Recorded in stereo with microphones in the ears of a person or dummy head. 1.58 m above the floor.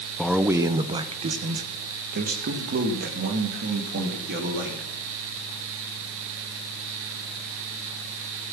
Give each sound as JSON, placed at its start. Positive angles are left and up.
{"t": 0.2, "sound": "a man speaking", "side_deg": 5, "distance_m": 0.6}